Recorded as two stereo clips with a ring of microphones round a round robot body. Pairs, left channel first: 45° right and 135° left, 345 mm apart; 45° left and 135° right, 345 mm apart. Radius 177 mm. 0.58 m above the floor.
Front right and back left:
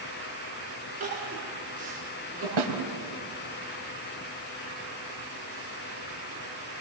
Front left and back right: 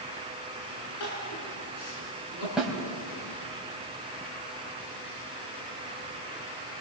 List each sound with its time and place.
1.0 s crying: 65° left, 6.5 m
2.6 s a snare drum: 135° left, 3.5 m